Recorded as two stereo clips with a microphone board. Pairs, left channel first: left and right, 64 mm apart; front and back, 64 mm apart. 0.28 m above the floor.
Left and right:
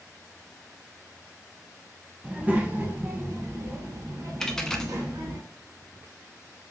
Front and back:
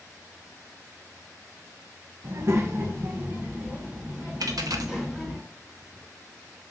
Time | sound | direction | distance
2.2 | a child speaking | 160° right | 0.9 m
4.4 | a dropped coin | 170° left | 0.6 m